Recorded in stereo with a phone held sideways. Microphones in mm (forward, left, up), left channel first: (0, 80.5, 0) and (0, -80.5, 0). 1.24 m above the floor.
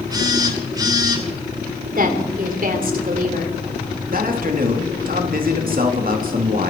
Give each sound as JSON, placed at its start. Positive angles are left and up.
{"t": 0.1, "sound": "a phone buzzing", "side_deg": -25, "distance_m": 2.5}
{"t": 1.9, "sound": "a woman speaking", "side_deg": -55, "distance_m": 3.0}
{"t": 4.1, "sound": "a man speaking", "side_deg": -60, "distance_m": 2.5}